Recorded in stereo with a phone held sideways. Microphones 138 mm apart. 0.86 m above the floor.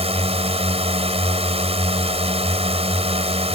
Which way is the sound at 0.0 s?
50° right (ahead or behind).